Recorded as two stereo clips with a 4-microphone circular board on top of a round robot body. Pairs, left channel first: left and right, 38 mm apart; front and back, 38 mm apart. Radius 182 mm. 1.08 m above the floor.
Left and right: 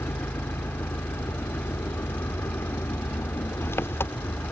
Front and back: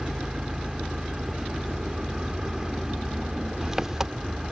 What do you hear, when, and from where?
0.0 s an engine running: 100° left